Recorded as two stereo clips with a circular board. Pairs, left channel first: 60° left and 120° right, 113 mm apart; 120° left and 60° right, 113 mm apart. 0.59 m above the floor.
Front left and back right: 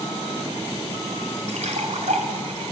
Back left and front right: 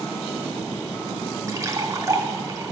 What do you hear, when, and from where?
1.5 s a splash: 125° right, 1.9 m